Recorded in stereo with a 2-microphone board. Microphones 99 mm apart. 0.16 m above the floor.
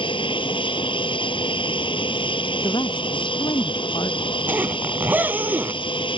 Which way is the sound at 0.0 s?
60° left (ahead or behind).